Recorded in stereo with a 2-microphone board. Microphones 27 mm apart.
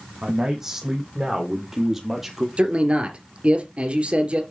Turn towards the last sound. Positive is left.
turn(degrees=-45)  # may be behind; listen again after turning